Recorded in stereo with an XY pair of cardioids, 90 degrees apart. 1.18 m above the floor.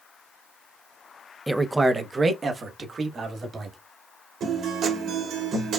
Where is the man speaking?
5° right, 0.6 m; by 3.8 s 50° right, 2 m.